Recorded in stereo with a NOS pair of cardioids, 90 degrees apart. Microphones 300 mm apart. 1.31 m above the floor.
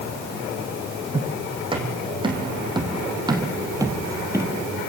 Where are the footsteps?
15° right, 5 m; by 4.6 s 10° right, 2 m.